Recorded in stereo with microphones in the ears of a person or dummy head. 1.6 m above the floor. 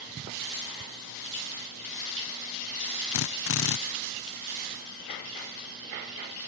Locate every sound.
3.1 s a drill: 65° left (ahead or behind)